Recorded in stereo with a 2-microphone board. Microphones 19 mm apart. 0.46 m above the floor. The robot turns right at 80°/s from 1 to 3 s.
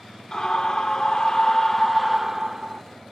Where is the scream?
100° left, 1.1 m; by 2.8 s 115° right, 1.1 m.